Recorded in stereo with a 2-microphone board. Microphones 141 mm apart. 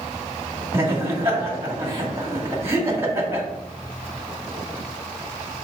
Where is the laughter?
20° right (ahead or behind), 1.9 m.